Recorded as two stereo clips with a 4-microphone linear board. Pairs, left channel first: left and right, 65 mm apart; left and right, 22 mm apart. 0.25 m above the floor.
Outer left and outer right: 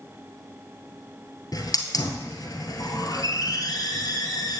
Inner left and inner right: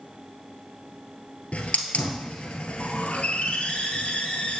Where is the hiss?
80° left, 1.5 m.